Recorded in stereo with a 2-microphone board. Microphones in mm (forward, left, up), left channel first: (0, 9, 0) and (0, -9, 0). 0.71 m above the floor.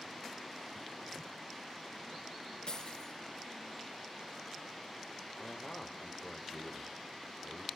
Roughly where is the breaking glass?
Left.